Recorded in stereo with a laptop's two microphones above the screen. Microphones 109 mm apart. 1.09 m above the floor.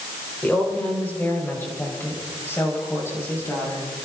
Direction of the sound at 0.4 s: 15° left (ahead or behind).